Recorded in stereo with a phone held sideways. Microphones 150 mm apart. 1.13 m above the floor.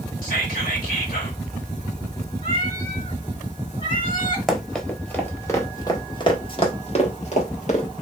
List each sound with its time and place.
0.2 s whispering: 70° left (ahead or behind), 2.5 m
2.4 s a cat meowing: 65° left (ahead or behind), 2.5 m
4.5 s running footsteps: centre (ahead or behind), 1.6 m; by 7.8 s 55° left (ahead or behind), 1.9 m